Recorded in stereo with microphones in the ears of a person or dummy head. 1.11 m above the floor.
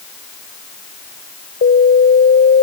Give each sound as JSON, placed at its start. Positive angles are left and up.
{"t": 1.6, "sound": "an alarm", "side_deg": 50}